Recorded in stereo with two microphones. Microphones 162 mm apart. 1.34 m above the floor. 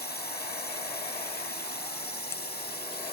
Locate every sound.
0.0 s a drone: 85° left; by 3.1 s 80° left